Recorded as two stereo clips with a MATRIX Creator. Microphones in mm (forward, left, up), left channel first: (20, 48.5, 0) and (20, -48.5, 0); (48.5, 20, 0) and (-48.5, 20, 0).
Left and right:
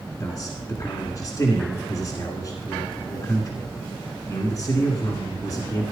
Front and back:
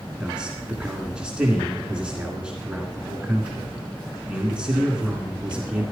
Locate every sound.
0.2 s a man speaking: 105° left, 1.7 m